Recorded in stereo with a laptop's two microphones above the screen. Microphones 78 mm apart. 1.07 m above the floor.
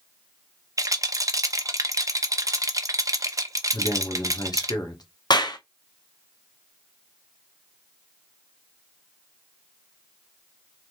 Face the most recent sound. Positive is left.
turn(degrees=65)  # may be behind; listen again after turning